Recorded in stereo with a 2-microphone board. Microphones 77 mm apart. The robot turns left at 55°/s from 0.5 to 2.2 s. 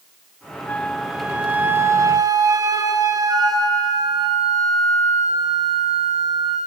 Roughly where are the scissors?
No scissors in this recording.